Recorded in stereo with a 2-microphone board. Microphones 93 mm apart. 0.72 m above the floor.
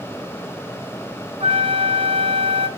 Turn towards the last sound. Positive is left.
turn(degrees=-75)  # may be behind; listen again after turning